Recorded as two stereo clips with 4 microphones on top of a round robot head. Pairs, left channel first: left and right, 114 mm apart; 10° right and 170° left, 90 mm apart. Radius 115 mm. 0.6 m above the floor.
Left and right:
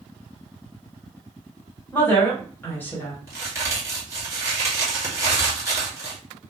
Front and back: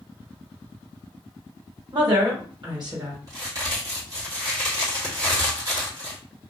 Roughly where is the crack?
Behind right.